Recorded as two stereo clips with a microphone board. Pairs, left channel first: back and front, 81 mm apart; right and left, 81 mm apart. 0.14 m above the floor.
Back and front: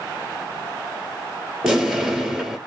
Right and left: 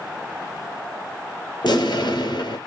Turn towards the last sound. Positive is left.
turn(degrees=-80)